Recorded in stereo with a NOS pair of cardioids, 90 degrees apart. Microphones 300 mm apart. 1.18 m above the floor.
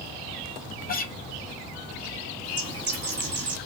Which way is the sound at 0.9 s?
30° left.